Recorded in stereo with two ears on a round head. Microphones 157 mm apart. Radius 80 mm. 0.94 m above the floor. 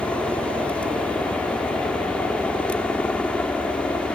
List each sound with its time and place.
0.0 s a helicopter: 5° left (ahead or behind)